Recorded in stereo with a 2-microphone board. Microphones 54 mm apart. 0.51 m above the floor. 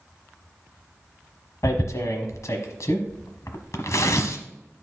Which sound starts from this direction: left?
Tearing paper, at 1.6 s.